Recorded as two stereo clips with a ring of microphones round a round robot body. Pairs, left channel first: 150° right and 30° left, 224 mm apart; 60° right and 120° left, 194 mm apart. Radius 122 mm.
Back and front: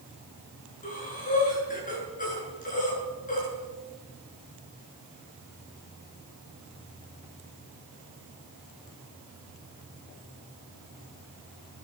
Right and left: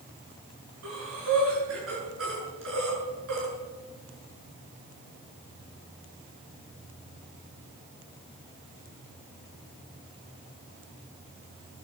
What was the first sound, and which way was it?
Breathing, 150° left.